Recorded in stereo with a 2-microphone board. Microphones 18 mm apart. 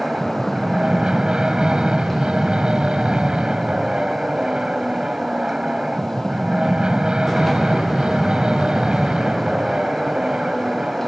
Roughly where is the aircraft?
Right.